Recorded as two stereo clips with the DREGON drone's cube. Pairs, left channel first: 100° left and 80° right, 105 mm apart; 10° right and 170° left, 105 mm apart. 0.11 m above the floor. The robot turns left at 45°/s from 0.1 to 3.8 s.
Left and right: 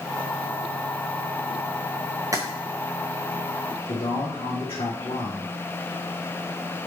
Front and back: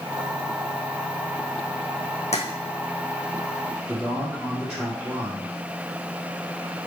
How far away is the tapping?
About 1.5 m.